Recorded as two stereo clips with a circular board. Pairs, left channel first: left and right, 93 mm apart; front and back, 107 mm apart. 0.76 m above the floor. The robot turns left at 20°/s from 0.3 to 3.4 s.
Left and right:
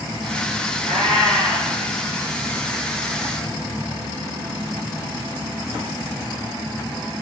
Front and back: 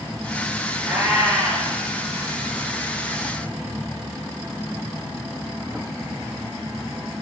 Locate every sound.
0.8 s a cat meowing: 105° right, 3.5 m; by 1.7 s 120° right, 3.5 m